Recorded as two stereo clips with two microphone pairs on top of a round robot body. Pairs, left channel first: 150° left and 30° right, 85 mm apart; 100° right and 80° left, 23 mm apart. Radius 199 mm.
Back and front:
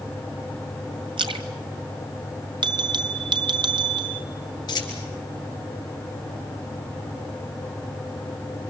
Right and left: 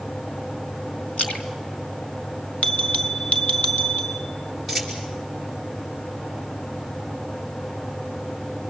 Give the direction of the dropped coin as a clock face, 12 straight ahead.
6 o'clock.